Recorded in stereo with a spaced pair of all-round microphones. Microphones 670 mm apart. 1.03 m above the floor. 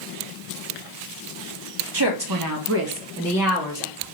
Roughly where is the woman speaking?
Right.